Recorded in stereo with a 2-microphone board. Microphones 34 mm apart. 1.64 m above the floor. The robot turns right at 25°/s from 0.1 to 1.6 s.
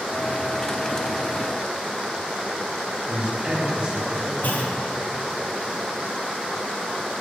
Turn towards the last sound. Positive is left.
turn(degrees=65)  # may be behind; listen again after turning